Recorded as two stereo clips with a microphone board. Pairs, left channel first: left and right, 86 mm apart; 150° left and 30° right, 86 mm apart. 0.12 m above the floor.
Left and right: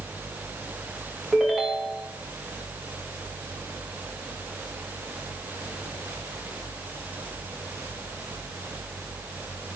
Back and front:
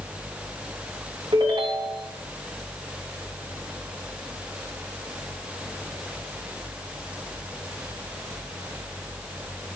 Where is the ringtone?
5° right, 4.5 m.